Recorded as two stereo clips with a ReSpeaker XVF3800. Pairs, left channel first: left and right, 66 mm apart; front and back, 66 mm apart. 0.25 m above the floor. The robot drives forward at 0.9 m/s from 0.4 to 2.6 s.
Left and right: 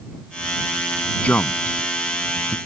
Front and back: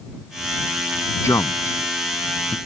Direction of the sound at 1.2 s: 20° left.